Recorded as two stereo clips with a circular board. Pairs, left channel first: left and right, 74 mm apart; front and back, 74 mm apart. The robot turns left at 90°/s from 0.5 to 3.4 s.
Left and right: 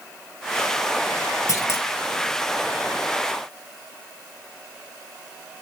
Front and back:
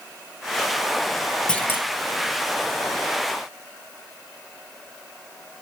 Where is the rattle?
No rattle in this recording.